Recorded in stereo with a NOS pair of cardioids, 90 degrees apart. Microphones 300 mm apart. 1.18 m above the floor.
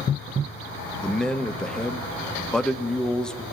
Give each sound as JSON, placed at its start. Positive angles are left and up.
{"t": 1.0, "sound": "a man speaking", "azimuth_deg": 5, "distance_m": 0.8}